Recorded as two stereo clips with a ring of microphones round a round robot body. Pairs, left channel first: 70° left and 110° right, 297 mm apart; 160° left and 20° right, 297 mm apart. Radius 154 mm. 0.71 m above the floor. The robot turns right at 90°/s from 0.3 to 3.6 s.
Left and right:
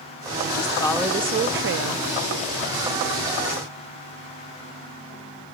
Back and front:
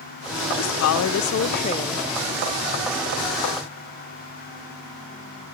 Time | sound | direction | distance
0.5 | a woman speaking | 115° left | 0.6 m